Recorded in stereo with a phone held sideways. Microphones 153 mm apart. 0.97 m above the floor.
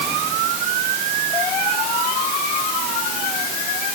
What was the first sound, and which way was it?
Only background noise.